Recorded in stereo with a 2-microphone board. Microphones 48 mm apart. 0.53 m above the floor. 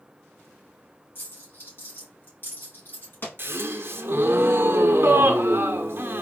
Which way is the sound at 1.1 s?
45° left (ahead or behind).